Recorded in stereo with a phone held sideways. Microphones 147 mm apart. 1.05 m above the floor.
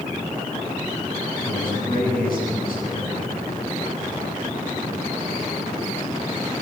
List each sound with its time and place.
1.4 s a man speaking: 80° left, 10 m